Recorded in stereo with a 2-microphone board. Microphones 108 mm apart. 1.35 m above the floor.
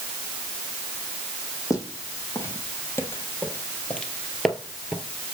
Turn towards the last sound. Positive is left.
turn(degrees=-10)  # may be behind; listen again after turning